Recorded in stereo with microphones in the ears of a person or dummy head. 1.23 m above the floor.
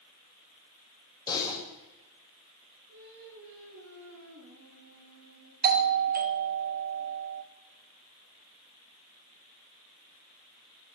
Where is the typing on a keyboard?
25° left (ahead or behind), 5.5 m.